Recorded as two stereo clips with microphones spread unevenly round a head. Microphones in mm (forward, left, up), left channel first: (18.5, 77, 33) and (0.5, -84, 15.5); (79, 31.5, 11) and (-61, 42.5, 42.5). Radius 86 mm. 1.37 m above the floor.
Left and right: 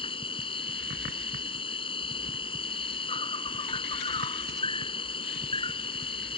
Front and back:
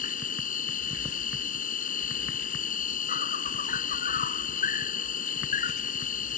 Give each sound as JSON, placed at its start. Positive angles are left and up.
{"t": 0.0, "sound": "an insect", "azimuth_deg": 25}